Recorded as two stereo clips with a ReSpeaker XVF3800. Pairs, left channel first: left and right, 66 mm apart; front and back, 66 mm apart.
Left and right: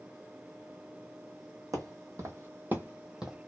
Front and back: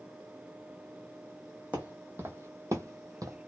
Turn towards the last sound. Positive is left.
turn(degrees=-170)